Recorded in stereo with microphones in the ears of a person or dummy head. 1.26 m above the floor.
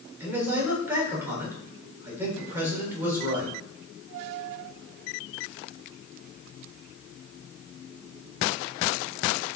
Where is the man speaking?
15° right (ahead or behind), 3.5 m.